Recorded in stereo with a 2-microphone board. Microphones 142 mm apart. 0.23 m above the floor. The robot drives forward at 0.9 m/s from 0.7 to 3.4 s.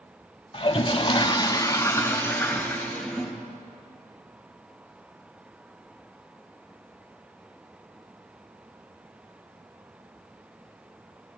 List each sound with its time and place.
0.5 s a toilet flushing: 35° left (ahead or behind), 0.7 m; by 3.4 s 10° left (ahead or behind), 2.5 m